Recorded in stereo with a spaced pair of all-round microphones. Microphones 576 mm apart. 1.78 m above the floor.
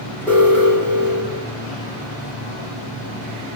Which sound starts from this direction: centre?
An alarm, at 0.3 s.